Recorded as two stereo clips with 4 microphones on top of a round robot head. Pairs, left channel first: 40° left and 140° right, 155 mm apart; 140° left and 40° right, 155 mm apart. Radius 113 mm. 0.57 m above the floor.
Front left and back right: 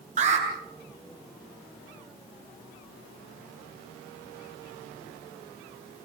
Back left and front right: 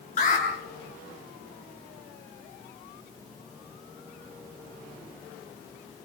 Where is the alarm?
Straight behind, 8.5 m.